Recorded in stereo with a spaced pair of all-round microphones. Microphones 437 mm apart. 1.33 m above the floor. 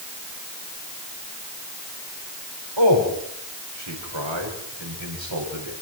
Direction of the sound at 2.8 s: 85° right.